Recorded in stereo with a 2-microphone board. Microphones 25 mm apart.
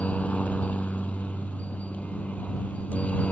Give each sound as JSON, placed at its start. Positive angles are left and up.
{"t": 0.0, "sound": "a helicopter", "side_deg": 70}